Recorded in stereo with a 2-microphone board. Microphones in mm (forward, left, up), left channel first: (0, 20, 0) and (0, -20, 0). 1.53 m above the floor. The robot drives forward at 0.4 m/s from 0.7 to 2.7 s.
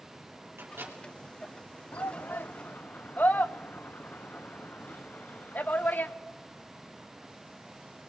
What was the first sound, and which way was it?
A microwave, 80° right.